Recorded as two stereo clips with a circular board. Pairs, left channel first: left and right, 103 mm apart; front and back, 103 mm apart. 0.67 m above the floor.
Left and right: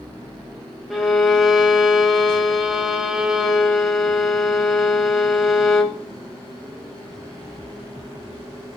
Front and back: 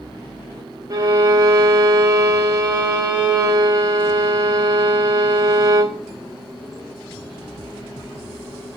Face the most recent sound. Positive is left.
turn(degrees=-175)